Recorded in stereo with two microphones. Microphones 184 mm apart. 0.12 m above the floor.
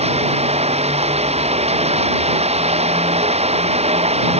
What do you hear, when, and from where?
0.0 s running water: 35° right (ahead or behind)